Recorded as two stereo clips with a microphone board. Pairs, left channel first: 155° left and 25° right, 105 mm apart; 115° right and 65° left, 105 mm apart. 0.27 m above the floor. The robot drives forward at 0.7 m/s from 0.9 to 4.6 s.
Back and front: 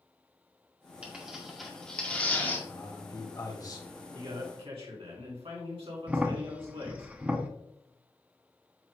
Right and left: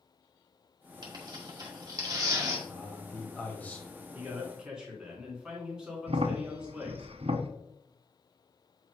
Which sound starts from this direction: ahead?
A man speaking, at 4.1 s.